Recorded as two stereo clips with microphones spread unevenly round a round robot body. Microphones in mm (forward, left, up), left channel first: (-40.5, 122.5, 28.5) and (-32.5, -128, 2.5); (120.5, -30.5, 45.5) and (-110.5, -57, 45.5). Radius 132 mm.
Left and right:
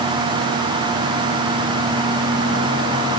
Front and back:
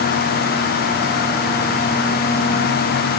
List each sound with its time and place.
Only background noise.